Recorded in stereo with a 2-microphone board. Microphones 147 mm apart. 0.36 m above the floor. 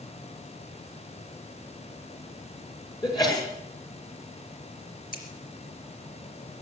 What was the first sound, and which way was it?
A sneeze, 30° left (ahead or behind).